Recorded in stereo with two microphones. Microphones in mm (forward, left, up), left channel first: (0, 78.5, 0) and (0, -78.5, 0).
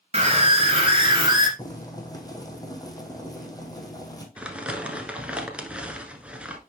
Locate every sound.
0.1 s a scream: 40° right (ahead or behind), 2 m; by 1.5 s 30° right (ahead or behind), 2 m
1.6 s boiling: 25° left (ahead or behind), 1.4 m
4.4 s crumpling: 10° right (ahead or behind), 1.0 m